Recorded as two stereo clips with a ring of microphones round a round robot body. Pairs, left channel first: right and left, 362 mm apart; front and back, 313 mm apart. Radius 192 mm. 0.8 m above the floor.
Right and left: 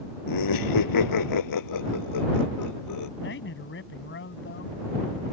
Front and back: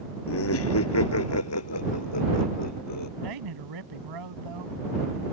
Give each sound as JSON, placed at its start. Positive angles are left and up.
{"t": 0.3, "sound": "laughter", "azimuth_deg": -55}
{"t": 3.2, "sound": "a man speaking", "azimuth_deg": -150}